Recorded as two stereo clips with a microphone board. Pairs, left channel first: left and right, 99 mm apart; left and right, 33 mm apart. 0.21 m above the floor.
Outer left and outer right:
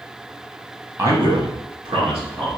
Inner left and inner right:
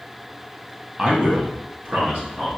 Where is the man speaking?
25° right (ahead or behind), 1.0 m; by 2.5 s 70° right (ahead or behind), 2.5 m.